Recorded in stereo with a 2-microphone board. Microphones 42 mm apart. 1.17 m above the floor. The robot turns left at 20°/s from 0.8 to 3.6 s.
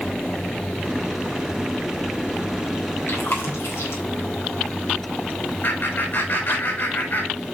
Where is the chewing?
80° left, 4.5 m; by 4.0 s 90° left, 4.5 m.